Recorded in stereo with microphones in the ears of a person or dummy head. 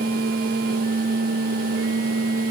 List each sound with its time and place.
Only background noise.